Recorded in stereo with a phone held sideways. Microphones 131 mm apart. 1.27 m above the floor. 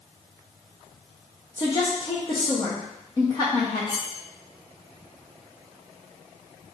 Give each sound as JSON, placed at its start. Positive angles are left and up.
{"t": 1.6, "sound": "a woman speaking", "side_deg": 30, "distance_m": 0.9}
{"t": 3.9, "sound": "cutlery clinking", "side_deg": 30, "distance_m": 0.6}